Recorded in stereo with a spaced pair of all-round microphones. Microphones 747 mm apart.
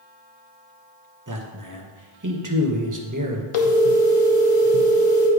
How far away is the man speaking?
About 1.1 m.